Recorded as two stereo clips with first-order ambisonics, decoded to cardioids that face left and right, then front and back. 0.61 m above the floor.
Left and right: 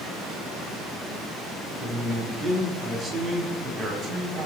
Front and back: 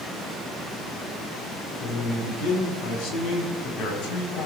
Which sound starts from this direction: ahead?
A man speaking, at 1.8 s.